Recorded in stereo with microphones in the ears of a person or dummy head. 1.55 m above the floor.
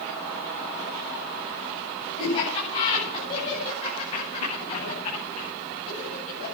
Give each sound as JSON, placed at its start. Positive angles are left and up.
{"t": 2.2, "sound": "laughter", "side_deg": 30, "distance_m": 9.5}